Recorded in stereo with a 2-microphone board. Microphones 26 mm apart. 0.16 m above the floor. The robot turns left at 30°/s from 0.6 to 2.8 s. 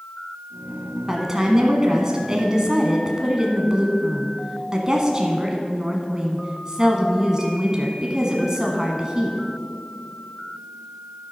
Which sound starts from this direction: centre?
A woman speaking, at 1.1 s.